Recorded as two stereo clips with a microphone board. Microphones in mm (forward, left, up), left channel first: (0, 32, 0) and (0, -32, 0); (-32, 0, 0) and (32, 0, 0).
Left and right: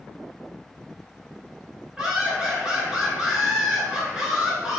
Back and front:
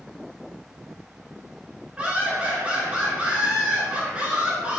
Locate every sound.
2.0 s laughter: 35° right, 1.1 m